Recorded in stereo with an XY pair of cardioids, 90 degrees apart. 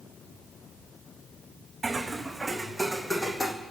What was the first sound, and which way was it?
Footsteps, 30° right.